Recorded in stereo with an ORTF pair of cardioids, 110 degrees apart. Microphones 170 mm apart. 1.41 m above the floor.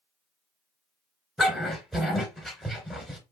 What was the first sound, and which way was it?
A dog barking, straight ahead.